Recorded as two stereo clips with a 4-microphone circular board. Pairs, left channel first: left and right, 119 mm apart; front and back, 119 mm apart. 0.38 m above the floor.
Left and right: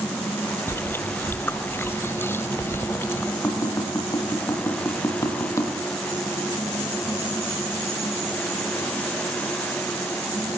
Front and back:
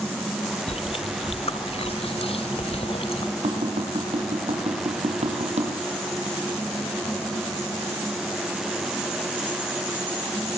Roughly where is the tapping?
Behind left.